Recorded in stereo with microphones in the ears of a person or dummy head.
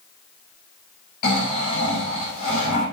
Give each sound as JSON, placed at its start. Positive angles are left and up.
{"t": 1.2, "sound": "snoring", "side_deg": 50, "distance_m": 5.0}